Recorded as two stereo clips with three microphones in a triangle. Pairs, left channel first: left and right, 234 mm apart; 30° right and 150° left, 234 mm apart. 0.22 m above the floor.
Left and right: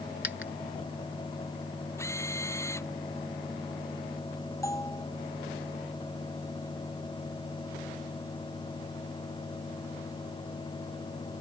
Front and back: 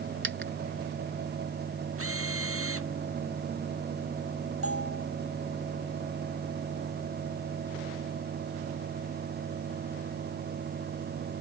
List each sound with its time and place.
0.2 s a dropped coin: 120° left
2.0 s a drill: 170° left
4.6 s a bell: 165° left